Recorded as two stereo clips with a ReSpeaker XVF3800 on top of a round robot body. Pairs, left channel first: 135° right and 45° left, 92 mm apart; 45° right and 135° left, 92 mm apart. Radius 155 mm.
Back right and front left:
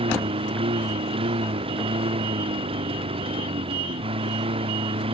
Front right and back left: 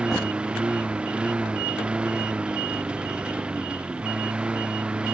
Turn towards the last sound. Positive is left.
turn(degrees=55)